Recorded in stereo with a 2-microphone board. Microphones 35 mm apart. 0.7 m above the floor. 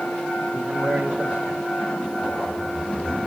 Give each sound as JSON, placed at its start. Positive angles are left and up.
{"t": 0.5, "sound": "a man speaking", "side_deg": -70, "distance_m": 2.5}